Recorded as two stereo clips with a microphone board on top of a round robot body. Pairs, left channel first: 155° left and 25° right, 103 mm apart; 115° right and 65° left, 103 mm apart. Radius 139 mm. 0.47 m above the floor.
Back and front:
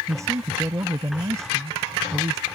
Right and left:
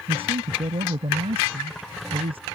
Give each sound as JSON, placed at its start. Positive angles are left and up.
{"t": 0.1, "sound": "a man speaking", "azimuth_deg": 40}